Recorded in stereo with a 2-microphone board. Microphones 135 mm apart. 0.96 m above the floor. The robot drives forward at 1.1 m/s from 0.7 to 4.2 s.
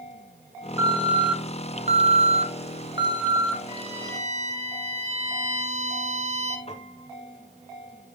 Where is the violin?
40° right (ahead or behind), 2.0 m; by 6.6 s 55° right (ahead or behind), 1.6 m.